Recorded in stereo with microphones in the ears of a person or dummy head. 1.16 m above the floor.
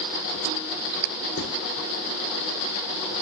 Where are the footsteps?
50° left (ahead or behind), 5 m.